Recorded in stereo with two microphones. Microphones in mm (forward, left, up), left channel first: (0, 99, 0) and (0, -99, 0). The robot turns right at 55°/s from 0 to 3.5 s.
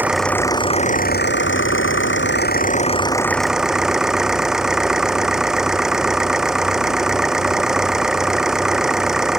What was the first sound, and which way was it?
An engine running, 10° right.